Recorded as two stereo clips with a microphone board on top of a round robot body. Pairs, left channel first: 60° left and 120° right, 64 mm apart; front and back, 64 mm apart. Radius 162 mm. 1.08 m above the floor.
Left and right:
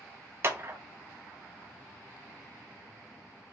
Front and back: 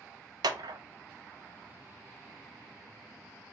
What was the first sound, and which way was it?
A clap, 175° right.